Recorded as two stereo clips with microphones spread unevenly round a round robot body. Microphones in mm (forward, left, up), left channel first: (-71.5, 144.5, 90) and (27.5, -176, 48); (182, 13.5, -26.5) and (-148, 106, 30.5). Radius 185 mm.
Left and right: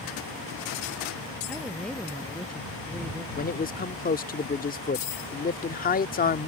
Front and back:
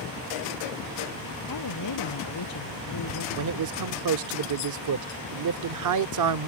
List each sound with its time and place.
1.5 s a woman speaking: 20° left
3.4 s a man speaking: 170° left